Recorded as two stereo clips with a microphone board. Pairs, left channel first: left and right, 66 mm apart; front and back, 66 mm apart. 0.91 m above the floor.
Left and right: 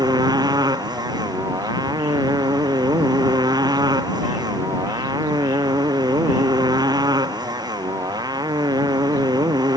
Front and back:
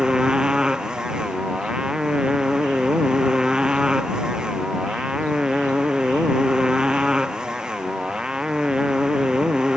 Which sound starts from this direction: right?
A motorcycle, at 0.0 s.